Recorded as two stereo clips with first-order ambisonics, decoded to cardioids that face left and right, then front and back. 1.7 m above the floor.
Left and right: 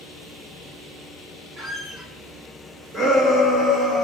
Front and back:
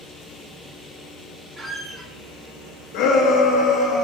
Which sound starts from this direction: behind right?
A squeak, at 1.6 s.